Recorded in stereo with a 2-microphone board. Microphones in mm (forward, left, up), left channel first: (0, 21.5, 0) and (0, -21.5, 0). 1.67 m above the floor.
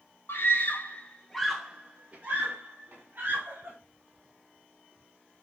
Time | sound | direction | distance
0.3 | a scream | 65° left (ahead or behind) | 2 m